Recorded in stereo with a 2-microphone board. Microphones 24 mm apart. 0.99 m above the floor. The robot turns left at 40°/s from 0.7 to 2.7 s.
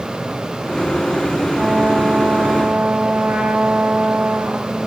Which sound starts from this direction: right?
A trumpet, at 1.6 s.